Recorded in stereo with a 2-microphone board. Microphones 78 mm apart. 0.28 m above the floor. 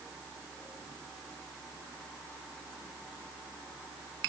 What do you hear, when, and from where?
Only background noise.